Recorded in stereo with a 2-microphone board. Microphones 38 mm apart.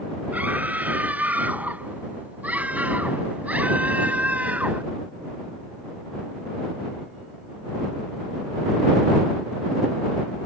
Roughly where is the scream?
Right.